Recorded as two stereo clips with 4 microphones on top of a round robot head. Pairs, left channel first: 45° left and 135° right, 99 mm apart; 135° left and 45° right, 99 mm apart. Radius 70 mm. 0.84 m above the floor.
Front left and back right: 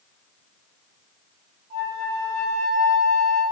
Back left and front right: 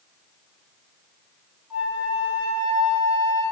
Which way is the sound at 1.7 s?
120° right.